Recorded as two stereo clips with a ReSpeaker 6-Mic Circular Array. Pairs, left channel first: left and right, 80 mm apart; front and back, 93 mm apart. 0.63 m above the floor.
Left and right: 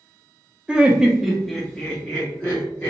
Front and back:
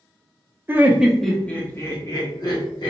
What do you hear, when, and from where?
0.7 s laughter: 145° right, 0.6 m; by 2.9 s 20° left, 1.0 m